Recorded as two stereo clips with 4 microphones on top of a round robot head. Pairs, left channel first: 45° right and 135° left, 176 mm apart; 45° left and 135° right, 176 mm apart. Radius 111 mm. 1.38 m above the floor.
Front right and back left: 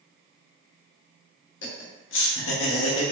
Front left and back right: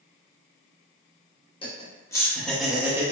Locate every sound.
1.6 s laughter: 20° right, 1.2 m; by 3.1 s 65° right, 0.9 m